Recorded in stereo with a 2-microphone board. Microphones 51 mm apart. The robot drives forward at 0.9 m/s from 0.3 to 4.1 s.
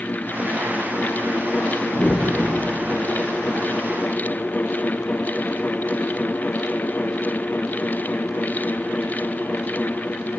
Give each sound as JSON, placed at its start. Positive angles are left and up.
{"t": 1.9, "sound": "a whoosh", "side_deg": 40, "distance_m": 0.6}